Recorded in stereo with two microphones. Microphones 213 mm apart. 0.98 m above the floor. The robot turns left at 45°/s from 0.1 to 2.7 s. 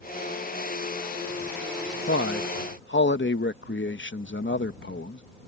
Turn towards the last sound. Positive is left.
turn(degrees=60)  # may be behind; listen again after turning